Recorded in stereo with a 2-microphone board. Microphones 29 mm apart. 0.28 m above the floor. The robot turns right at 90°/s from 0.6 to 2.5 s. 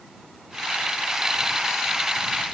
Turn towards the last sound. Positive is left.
No sound to turn to.